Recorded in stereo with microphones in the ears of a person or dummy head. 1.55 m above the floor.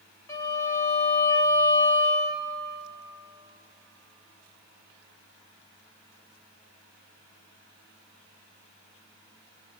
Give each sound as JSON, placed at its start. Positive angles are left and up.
{"t": 0.3, "sound": "a violin", "side_deg": 15, "distance_m": 1.8}